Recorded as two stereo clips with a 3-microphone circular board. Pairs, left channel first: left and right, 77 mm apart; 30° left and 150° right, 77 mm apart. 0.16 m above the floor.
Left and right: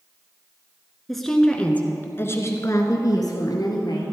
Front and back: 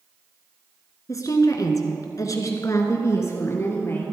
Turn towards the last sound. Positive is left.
turn(degrees=85)